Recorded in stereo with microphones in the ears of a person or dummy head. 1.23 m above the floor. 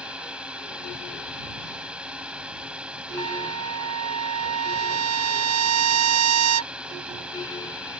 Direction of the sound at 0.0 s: 10° right (ahead or behind).